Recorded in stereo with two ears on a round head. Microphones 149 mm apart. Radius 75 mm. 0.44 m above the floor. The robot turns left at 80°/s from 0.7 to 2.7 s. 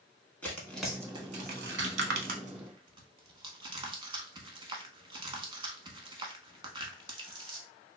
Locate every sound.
0.4 s tearing paper: 10° left (ahead or behind), 0.7 m; by 7.6 s 30° right (ahead or behind), 0.7 m